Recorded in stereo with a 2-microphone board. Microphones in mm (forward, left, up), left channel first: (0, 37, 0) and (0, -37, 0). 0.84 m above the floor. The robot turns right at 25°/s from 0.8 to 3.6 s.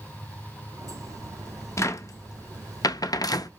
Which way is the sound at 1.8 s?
40° left (ahead or behind).